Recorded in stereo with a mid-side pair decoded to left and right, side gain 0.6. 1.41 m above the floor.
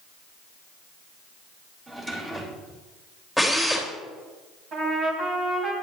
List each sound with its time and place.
1.9 s a drawer: 25° right, 3 m
3.4 s a drill: 5° right, 3 m
4.7 s a trumpet: 45° right, 3.5 m